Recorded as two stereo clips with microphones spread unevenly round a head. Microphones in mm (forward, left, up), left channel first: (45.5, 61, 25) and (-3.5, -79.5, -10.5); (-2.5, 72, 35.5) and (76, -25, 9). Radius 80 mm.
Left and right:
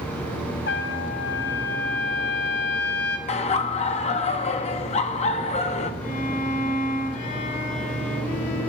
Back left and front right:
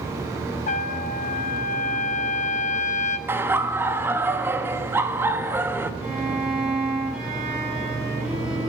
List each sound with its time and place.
0.7 s a trumpet: 105° left, 1.3 m
3.3 s laughter: 20° left, 1.6 m
6.0 s a violin: 35° left, 7 m